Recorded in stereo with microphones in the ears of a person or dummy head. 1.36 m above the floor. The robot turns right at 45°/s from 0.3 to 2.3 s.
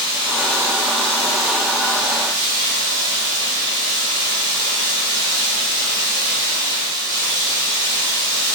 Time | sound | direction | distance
0.0 | running water | 165° right | 0.9 m